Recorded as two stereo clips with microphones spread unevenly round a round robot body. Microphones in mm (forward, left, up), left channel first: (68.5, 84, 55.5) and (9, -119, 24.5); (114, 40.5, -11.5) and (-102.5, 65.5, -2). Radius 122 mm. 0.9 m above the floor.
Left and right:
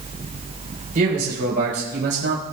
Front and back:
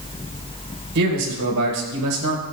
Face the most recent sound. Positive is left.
turn(degrees=-150)